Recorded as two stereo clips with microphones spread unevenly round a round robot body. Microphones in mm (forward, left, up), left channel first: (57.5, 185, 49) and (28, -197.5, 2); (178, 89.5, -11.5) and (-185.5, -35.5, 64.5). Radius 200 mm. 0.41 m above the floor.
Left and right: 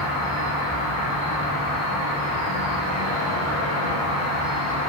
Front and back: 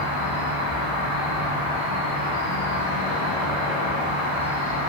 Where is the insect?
30° left, 1.9 m.